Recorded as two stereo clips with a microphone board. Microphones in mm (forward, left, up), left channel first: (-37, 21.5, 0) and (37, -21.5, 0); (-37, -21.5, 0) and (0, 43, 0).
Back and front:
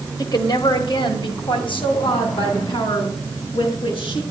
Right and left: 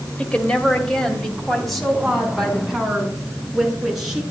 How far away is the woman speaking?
About 2 m.